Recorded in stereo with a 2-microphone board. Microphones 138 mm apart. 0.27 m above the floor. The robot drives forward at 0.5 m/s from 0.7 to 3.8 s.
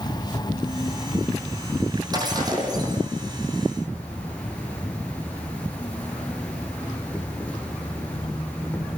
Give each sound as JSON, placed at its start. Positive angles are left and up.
{"t": 0.0, "sound": "an insect", "side_deg": 30, "distance_m": 0.7}
{"t": 2.1, "sound": "breaking glass", "side_deg": -30, "distance_m": 7.0}